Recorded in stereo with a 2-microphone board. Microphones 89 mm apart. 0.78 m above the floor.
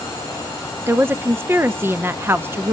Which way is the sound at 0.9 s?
25° right (ahead or behind).